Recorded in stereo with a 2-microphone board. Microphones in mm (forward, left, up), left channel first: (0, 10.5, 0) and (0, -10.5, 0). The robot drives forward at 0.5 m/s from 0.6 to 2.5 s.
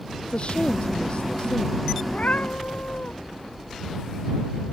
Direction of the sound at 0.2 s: 55° left (ahead or behind).